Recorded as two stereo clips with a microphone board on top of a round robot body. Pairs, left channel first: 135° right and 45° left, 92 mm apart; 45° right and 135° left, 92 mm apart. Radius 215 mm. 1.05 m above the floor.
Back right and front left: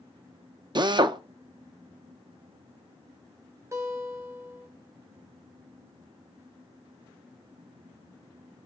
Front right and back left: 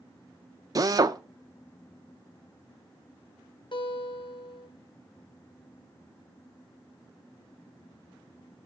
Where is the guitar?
15° right, 2.5 m.